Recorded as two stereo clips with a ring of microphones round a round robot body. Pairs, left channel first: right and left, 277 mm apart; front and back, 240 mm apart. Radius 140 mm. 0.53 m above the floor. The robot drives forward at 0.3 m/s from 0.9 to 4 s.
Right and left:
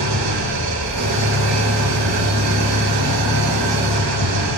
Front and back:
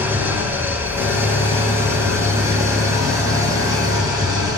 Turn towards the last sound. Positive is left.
turn(degrees=105)